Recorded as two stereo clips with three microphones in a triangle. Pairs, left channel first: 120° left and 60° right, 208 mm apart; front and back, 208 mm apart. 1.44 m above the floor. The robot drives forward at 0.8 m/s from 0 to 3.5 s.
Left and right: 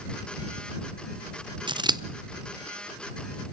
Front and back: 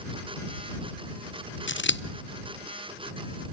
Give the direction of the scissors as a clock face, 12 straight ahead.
12 o'clock.